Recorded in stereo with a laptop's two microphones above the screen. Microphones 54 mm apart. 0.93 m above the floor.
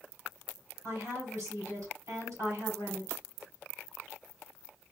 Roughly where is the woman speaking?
Right.